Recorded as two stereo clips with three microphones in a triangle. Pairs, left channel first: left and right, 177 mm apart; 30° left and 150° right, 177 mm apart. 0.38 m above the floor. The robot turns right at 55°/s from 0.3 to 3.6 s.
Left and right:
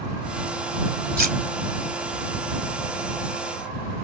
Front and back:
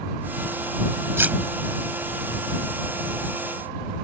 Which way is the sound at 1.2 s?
75° right.